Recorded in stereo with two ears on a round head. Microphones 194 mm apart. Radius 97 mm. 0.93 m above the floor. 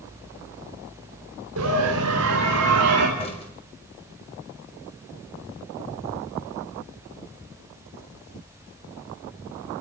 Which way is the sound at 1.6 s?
80° right.